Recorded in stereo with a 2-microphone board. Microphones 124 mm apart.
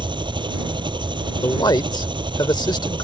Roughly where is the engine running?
Right.